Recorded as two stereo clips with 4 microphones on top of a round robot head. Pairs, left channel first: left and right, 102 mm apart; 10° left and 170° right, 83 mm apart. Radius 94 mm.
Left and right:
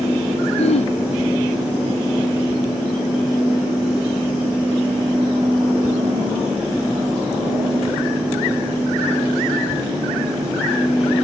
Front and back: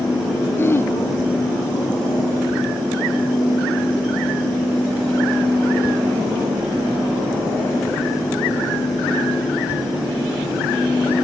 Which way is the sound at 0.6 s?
75° left.